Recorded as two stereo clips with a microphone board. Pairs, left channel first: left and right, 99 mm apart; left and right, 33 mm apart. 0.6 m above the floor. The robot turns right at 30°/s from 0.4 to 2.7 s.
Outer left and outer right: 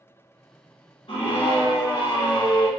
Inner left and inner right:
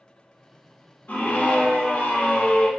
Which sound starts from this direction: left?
A scream, at 1.1 s.